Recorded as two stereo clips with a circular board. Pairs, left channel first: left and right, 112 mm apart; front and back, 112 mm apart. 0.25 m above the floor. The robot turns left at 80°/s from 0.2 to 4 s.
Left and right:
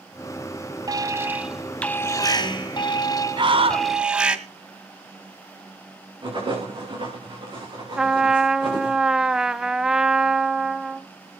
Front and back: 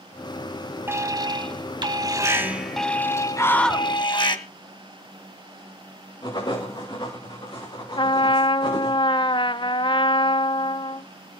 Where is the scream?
55° right, 2 m; by 3.9 s 95° right, 2 m.